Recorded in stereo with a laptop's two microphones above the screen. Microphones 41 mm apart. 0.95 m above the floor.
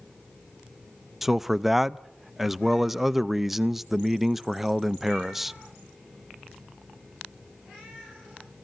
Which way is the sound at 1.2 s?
5° right (ahead or behind).